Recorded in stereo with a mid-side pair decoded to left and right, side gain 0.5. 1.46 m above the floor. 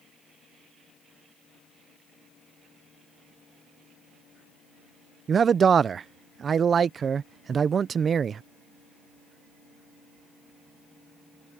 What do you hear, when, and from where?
5.3 s a man speaking: 40° right